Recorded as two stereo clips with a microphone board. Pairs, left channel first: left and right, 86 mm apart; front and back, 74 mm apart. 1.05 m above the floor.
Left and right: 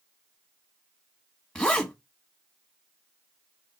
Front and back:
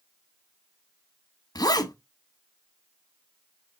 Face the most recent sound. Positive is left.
turn(degrees=10)